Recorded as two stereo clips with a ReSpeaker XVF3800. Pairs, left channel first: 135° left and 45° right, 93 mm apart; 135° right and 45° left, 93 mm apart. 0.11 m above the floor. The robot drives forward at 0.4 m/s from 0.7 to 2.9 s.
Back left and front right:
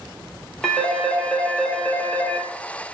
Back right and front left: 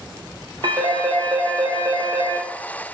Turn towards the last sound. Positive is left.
turn(degrees=85)